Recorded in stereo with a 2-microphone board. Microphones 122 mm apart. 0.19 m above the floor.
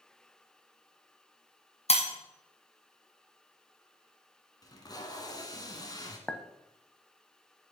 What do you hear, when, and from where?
1.9 s breaking glass: 60° left (ahead or behind), 1.6 m
4.6 s tape being pulled: 30° left (ahead or behind), 1.2 m
6.3 s a clink: 10° left (ahead or behind), 0.5 m